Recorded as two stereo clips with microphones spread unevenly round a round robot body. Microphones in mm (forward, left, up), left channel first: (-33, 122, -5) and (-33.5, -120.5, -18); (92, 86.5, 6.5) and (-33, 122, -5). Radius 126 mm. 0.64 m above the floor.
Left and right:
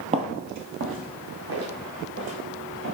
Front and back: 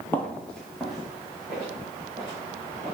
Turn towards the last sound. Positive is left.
turn(degrees=-120)